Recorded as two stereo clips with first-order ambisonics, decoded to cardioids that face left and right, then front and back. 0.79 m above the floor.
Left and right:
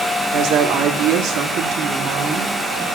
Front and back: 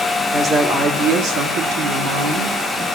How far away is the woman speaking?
About 1.5 m.